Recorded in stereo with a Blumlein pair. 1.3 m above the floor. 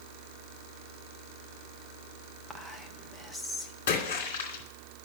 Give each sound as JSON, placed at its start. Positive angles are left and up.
{"t": 2.5, "sound": "whispering", "azimuth_deg": -5, "distance_m": 1.3}
{"t": 3.9, "sound": "a splash", "azimuth_deg": 60, "distance_m": 2.5}